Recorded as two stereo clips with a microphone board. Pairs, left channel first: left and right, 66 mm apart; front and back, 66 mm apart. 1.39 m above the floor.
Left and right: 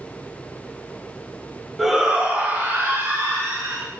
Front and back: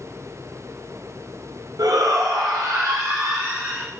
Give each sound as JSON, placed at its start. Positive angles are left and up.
{"t": 1.8, "sound": "a shout", "azimuth_deg": -175, "distance_m": 1.4}